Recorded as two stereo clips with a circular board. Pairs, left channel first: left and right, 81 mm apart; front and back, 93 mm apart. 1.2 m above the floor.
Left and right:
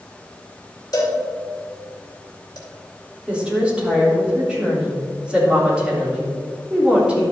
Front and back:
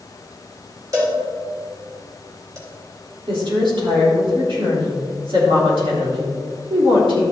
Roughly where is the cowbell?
Behind left.